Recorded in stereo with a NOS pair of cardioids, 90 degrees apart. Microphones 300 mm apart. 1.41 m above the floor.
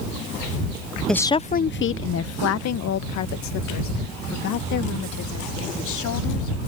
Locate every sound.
1.1 s a woman speaking: straight ahead; by 6.6 s 80° left